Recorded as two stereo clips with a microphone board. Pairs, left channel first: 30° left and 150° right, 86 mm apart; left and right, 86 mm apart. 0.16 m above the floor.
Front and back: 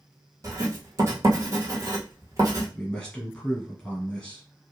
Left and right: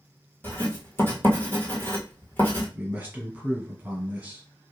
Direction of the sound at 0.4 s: 155° left.